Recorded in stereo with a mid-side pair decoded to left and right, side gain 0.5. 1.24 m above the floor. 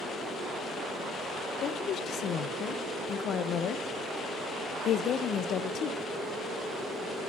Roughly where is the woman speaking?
Ahead left.